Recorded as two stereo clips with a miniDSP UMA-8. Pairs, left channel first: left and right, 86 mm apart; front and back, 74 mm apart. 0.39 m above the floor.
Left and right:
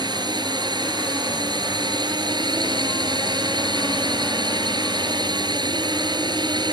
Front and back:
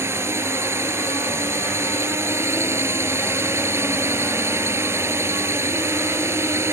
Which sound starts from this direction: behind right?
A drone, at 0.0 s.